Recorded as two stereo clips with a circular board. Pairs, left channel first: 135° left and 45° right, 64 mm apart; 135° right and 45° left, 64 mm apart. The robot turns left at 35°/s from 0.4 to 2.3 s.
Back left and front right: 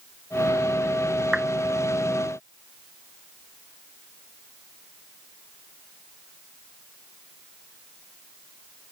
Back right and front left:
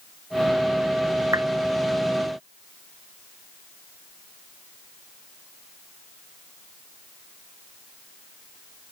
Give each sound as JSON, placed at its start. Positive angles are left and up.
{"t": 1.3, "sound": "a clap", "azimuth_deg": 30}